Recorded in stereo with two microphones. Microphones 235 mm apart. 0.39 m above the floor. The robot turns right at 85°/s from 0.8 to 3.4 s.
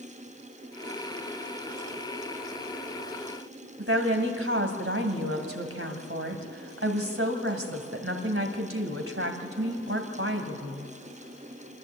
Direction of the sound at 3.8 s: 65° right (ahead or behind).